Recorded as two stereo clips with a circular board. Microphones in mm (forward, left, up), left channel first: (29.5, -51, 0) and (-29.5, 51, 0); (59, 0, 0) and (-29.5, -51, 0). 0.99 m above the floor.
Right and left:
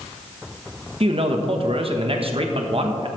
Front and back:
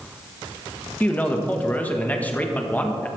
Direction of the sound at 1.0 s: 100° left.